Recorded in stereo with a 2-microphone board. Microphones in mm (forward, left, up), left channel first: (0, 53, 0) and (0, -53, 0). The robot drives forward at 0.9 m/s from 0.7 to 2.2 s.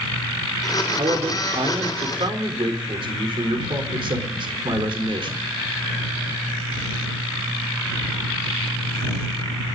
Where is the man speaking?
70° right (ahead or behind), 3.5 m; by 5.5 s 55° right (ahead or behind), 4 m.